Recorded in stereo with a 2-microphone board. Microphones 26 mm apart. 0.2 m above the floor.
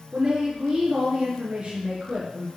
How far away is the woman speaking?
About 3 m.